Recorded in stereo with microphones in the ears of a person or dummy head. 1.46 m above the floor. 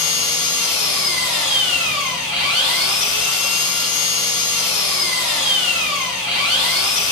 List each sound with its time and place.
0.0 s an engine running: 10° right (ahead or behind), 2.0 m